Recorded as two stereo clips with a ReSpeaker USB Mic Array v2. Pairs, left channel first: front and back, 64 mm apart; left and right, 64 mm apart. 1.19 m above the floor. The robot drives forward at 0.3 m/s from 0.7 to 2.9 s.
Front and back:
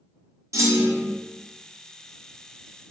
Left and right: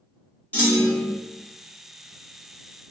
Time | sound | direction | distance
0.5 | a clunk | 150° left | 0.8 m